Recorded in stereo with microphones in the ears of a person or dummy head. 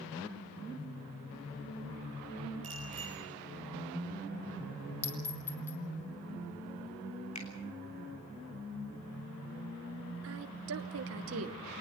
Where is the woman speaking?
75° right (ahead or behind), 1.0 m.